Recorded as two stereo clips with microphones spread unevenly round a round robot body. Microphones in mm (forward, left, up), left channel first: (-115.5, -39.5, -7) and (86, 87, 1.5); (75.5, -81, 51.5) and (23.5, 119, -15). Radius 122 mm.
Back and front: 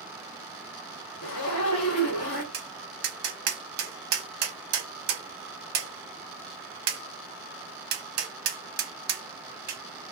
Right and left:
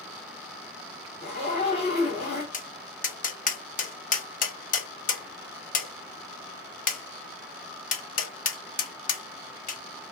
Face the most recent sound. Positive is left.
turn(degrees=-20)